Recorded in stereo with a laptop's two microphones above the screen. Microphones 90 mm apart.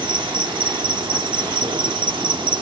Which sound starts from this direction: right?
An insect, at 0.0 s.